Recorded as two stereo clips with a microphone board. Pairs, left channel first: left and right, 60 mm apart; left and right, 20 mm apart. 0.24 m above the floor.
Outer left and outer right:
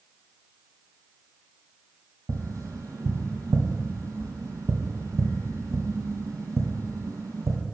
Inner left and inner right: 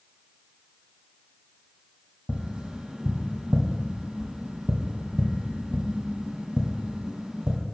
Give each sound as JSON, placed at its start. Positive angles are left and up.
{"t": 2.3, "sound": "tapping", "side_deg": -70, "distance_m": 1.6}